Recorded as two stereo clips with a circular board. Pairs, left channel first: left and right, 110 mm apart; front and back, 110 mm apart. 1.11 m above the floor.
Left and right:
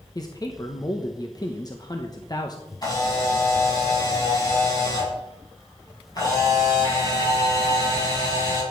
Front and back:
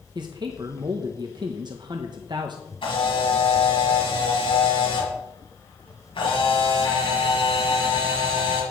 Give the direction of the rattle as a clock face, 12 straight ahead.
I don't hear a rattle.